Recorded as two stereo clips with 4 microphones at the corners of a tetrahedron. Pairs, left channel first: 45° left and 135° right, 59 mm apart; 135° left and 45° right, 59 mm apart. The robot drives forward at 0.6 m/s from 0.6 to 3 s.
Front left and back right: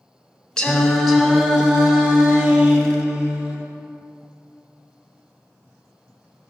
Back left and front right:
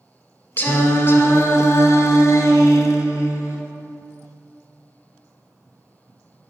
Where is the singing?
110° left, 0.8 m; by 3.6 s 165° left, 1.8 m.